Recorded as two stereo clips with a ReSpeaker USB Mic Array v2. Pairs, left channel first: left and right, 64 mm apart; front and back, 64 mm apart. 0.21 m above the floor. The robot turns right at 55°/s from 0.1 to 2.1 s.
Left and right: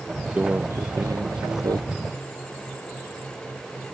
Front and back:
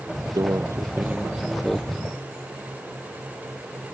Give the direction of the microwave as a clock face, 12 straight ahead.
5 o'clock.